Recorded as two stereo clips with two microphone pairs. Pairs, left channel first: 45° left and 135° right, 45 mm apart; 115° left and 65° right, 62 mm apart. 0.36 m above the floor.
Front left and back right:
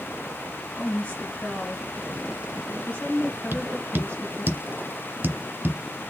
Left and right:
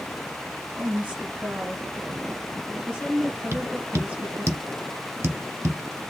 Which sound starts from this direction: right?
Tapping, at 3.5 s.